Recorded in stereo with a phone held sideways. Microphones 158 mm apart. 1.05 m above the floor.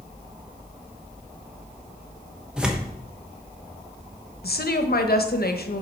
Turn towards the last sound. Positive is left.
turn(degrees=70)  # may be behind; listen again after turning